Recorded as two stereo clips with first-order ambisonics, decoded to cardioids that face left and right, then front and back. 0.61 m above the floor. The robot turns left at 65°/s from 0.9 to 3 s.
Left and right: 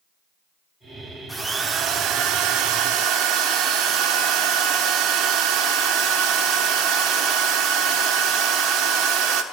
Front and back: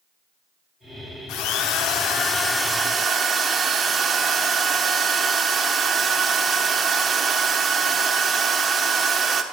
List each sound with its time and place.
1.3 s a drill: straight ahead, 1.2 m; by 9.4 s 110° right, 1.2 m